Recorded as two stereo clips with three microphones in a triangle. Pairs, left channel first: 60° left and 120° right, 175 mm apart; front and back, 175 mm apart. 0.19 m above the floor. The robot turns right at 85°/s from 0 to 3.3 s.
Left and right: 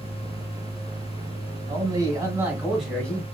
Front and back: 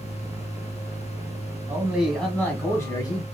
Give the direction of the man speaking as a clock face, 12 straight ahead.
4 o'clock.